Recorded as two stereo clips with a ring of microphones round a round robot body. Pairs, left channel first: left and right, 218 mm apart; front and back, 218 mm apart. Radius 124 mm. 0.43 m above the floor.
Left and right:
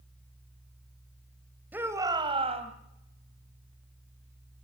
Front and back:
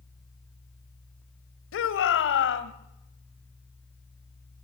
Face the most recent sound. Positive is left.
turn(degrees=-30)